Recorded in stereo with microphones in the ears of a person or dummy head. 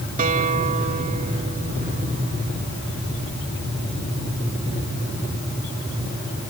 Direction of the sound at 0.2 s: 45° right (ahead or behind).